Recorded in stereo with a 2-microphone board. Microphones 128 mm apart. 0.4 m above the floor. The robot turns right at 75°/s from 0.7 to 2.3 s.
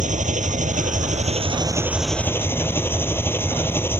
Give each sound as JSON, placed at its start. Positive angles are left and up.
{"t": 0.0, "sound": "an engine running", "azimuth_deg": -100}